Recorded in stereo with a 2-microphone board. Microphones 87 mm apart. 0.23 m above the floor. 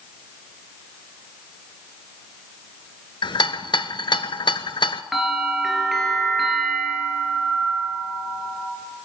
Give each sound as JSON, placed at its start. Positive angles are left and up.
{"t": 3.2, "sound": "a rattle", "side_deg": 65, "distance_m": 0.6}
{"t": 5.1, "sound": "a bell", "side_deg": 0, "distance_m": 3.0}